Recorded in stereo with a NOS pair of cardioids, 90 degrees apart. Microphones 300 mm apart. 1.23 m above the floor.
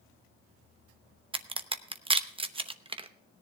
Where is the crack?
20° right, 0.8 m.